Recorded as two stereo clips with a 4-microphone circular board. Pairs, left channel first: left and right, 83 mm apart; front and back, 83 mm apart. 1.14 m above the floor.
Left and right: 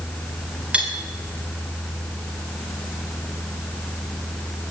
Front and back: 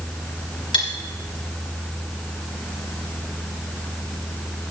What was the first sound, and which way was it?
Cutlery clinking, 15° right.